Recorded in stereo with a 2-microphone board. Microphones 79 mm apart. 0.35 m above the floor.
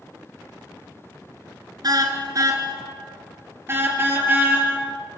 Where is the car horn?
55° right (ahead or behind), 2.5 m; by 4.7 s 25° right (ahead or behind), 4 m.